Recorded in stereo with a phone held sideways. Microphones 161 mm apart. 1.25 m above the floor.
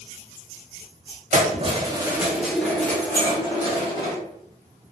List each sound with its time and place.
1.3 s keys jangling: 50° right (ahead or behind), 0.8 m; by 4.2 s 30° left (ahead or behind), 1.4 m
3.1 s a clink: 65° left (ahead or behind), 1.5 m